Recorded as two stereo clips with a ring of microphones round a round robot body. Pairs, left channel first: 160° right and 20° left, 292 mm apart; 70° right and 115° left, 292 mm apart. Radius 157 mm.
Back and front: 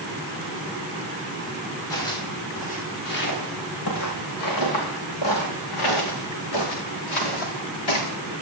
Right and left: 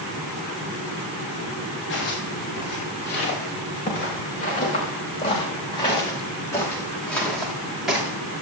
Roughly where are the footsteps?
Behind right.